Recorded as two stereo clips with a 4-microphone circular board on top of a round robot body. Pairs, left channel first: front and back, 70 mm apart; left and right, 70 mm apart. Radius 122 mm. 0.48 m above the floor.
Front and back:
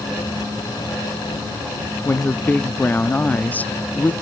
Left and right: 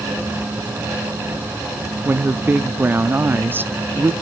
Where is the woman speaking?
50° right, 0.8 m.